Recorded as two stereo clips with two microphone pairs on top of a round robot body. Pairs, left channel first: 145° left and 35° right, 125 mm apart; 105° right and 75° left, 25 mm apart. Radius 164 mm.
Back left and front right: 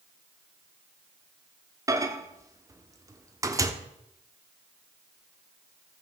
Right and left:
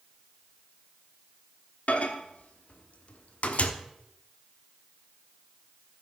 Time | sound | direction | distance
1.9 | a microwave | 95° right | 1.4 m